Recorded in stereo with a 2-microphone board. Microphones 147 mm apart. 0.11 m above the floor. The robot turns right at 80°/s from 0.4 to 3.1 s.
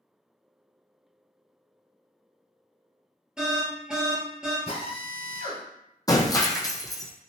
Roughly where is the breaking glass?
Left.